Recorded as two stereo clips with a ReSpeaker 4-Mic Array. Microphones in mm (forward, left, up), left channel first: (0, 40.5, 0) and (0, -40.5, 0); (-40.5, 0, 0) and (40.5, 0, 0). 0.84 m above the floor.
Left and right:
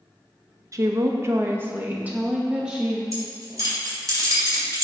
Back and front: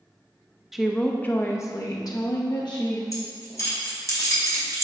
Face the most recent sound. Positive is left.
turn(degrees=-135)